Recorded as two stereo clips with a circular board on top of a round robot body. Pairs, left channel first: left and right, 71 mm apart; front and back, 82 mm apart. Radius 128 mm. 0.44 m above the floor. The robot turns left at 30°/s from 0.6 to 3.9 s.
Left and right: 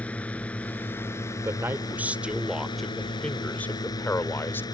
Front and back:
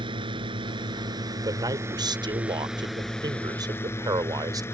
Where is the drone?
160° left; by 4.8 s 60° left.